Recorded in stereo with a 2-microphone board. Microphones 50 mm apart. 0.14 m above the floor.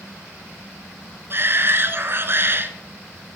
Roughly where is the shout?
Right.